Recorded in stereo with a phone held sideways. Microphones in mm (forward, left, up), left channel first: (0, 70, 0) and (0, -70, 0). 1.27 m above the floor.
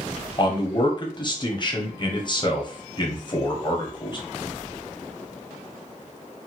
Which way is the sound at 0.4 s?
35° left (ahead or behind).